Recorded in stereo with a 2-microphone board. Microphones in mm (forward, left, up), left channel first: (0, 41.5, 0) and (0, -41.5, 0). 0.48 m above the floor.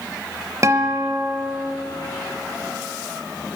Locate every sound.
0.6 s a guitar: 40° right (ahead or behind), 0.8 m